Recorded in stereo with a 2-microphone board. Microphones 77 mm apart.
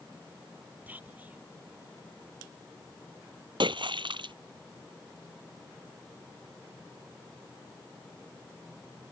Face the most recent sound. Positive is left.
turn(degrees=-75)  # may be behind; listen again after turning